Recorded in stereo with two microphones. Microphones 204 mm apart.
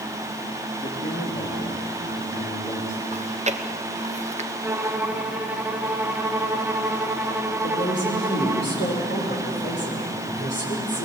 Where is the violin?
10° right (ahead or behind), 1.2 m.